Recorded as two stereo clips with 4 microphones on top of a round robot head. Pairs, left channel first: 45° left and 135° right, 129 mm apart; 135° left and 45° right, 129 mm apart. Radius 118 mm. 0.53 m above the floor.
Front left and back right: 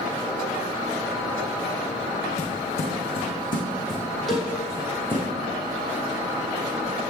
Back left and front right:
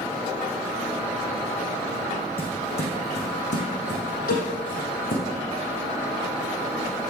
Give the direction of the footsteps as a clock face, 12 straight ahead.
9 o'clock.